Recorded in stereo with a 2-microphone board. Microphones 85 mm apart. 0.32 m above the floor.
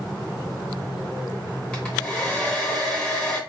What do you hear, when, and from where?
1.7 s a hair dryer: 15° left (ahead or behind), 1.1 m